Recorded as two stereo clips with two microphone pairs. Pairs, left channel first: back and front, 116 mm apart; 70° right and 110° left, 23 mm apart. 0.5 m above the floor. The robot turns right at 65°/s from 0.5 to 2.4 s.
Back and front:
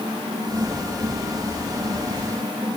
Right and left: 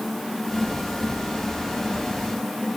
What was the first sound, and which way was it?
Only background noise.